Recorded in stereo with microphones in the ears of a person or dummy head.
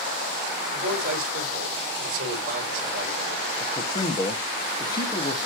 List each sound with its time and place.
0.7 s a man speaking: 55° right (ahead or behind), 4.5 m
3.6 s a man speaking: 25° left (ahead or behind), 1.7 m